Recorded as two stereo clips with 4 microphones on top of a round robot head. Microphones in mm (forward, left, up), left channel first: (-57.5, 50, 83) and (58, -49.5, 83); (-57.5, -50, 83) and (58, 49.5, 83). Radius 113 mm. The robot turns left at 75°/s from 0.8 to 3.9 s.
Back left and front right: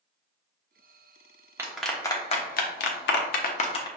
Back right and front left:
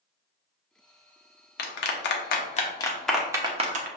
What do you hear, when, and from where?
1.6 s a clap: 115° right, 0.6 m; by 3.9 s 75° left, 0.6 m